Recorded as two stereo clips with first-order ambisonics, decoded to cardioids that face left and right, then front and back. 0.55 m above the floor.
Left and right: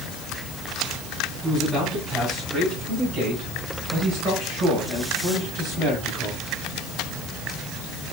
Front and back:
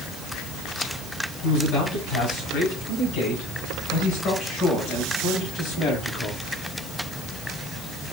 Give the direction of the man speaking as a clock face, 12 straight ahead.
1 o'clock.